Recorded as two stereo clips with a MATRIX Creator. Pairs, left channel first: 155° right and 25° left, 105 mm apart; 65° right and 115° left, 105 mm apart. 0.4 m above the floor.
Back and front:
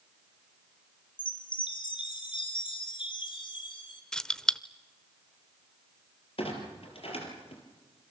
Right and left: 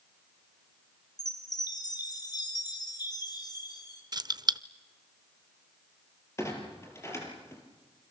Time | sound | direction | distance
1.2 | a chime | 120° right | 3.5 m
4.1 | keys jangling | 120° left | 0.6 m
6.4 | a clunk | 130° right | 4.5 m